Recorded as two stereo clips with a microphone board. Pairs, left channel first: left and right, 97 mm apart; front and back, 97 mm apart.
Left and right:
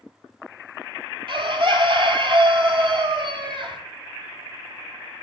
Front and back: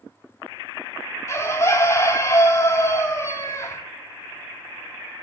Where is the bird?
60° right, 0.5 m.